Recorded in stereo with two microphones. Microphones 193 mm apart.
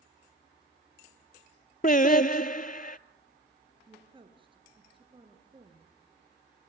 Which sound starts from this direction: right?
A woman speaking, at 3.9 s.